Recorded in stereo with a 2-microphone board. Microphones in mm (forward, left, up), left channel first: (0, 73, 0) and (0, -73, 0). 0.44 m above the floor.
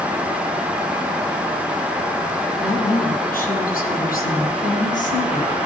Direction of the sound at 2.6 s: 80° left.